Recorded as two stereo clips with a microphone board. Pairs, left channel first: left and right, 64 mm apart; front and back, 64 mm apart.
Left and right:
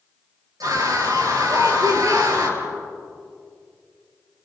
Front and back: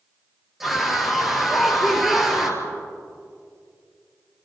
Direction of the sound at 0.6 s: 95° right.